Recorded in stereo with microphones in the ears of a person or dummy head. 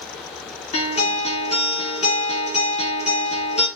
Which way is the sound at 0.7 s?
35° left (ahead or behind).